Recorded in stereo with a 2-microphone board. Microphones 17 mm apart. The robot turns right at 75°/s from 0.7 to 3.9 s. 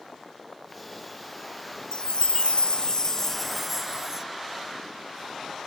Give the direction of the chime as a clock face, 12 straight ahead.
10 o'clock.